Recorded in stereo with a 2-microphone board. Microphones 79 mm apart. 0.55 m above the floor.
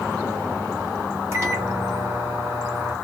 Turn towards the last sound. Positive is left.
turn(degrees=-30)  # may be behind; listen again after turning